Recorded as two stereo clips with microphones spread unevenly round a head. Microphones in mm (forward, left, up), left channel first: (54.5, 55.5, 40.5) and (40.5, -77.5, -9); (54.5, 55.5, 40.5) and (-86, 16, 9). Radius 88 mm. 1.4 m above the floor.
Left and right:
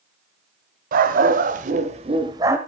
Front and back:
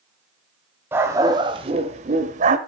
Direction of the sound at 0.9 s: 80° right.